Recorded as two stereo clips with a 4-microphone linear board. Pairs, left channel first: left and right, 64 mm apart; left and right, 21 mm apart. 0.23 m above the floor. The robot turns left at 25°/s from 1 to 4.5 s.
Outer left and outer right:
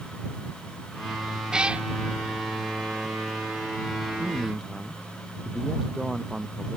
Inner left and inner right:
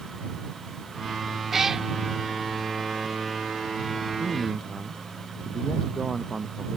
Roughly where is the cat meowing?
Centre.